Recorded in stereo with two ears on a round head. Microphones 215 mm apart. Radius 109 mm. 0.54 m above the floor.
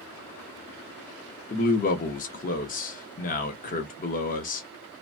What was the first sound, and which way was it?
A man speaking, 35° left (ahead or behind).